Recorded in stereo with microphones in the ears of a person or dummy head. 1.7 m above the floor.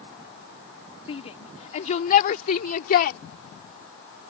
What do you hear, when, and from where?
1.1 s a shout: 35° left (ahead or behind); by 3.2 s 55° left (ahead or behind)